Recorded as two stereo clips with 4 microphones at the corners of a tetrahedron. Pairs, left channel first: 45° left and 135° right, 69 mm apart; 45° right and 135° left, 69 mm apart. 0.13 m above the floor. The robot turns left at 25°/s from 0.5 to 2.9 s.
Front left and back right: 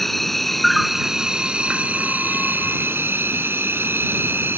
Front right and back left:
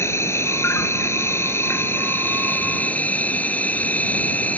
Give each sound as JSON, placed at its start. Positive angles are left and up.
{"t": 0.0, "sound": "an insect", "azimuth_deg": -40}